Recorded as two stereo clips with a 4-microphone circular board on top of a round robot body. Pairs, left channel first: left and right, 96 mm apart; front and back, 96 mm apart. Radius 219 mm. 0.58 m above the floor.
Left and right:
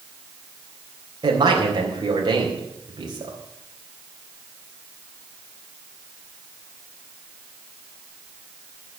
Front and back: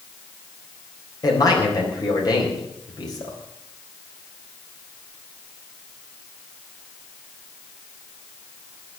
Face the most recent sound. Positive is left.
turn(degrees=-45)